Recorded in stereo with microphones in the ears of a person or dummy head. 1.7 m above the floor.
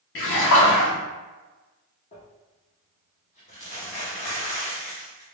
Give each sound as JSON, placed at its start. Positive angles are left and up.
{"t": 0.1, "sound": "a splash", "side_deg": 70, "distance_m": 1.2}
{"t": 2.1, "sound": "crumpling", "side_deg": 35, "distance_m": 1.0}